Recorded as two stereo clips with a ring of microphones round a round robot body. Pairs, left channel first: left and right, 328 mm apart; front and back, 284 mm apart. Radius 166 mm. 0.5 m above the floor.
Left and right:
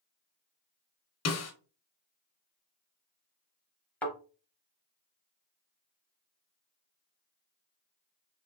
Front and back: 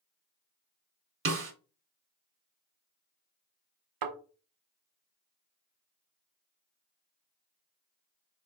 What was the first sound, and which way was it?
A snare drum, 135° left.